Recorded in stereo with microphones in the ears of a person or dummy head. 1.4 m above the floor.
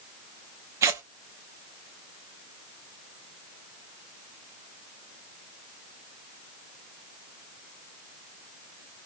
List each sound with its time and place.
0.8 s tearing paper: 25° right (ahead or behind), 0.5 m